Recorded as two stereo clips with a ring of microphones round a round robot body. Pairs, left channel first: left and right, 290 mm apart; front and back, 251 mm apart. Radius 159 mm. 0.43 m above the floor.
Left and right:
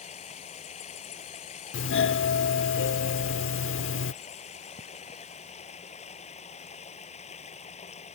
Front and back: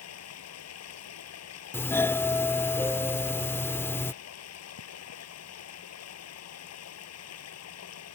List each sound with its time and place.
0.0 s running water: 20° left
1.7 s a doorbell: 75° left